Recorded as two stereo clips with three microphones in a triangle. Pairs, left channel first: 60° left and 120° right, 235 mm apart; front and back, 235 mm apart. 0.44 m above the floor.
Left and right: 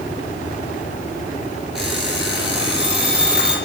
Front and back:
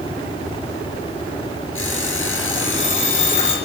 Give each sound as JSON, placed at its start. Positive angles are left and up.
{"t": 1.8, "sound": "an alarm clock", "azimuth_deg": -35, "distance_m": 8.0}